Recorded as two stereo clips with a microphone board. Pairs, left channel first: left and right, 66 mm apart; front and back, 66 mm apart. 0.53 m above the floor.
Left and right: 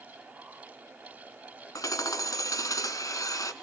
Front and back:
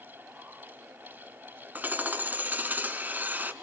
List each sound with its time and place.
1.8 s hammering: 115° left, 1.5 m